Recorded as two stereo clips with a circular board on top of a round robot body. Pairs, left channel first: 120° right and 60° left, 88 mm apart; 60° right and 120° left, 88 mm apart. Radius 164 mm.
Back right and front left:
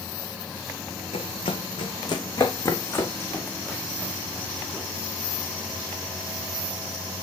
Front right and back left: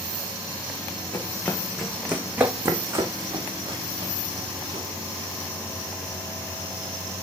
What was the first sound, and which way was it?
Running footsteps, 125° right.